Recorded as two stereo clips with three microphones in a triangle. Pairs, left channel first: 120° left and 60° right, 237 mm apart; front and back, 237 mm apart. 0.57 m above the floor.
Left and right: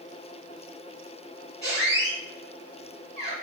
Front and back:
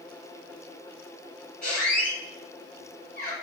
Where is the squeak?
45° left, 1.5 m.